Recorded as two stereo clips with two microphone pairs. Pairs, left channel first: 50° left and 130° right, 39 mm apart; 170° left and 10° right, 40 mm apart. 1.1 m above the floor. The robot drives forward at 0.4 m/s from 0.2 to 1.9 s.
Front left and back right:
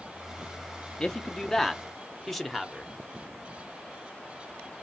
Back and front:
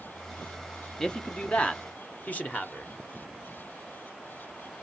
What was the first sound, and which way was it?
A man speaking, 110° left.